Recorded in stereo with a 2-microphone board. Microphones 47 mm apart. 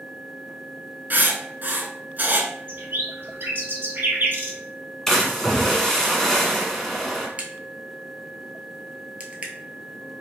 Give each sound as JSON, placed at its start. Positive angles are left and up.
{"t": 1.1, "sound": "writing", "side_deg": -40, "distance_m": 0.7}
{"t": 2.7, "sound": "a bird", "side_deg": -45, "distance_m": 1.5}
{"t": 5.1, "sound": "a splash", "side_deg": 10, "distance_m": 1.0}
{"t": 7.4, "sound": "a crack", "side_deg": -30, "distance_m": 0.8}